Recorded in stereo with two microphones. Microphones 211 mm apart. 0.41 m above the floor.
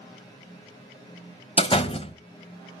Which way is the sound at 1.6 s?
30° left (ahead or behind).